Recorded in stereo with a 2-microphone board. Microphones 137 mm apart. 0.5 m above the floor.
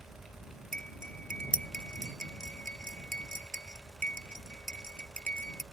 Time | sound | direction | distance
0.7 | cutlery clinking | 80° right | ?